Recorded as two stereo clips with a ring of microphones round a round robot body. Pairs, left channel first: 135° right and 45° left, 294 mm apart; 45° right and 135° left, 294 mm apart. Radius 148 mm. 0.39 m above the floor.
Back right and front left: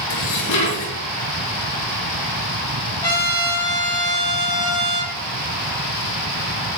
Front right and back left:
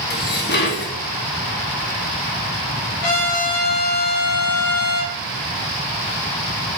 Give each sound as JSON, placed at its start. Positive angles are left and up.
{"t": 0.1, "sound": "dishes clattering", "azimuth_deg": -100, "distance_m": 4.0}
{"t": 3.0, "sound": "a trumpet", "azimuth_deg": -60, "distance_m": 9.0}